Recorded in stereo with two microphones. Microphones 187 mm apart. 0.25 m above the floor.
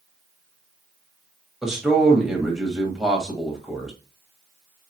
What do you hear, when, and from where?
1.6 s a man speaking: 5° right (ahead or behind), 1.2 m